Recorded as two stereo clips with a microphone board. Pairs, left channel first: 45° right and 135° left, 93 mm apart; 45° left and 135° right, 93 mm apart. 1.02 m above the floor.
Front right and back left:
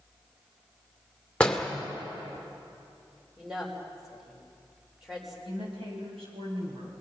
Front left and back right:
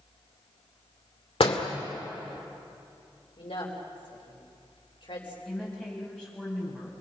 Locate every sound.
1.4 s a door slam: 30° left, 2.5 m
3.4 s a woman speaking: 50° left, 5 m
5.5 s a woman speaking: 125° left, 8.5 m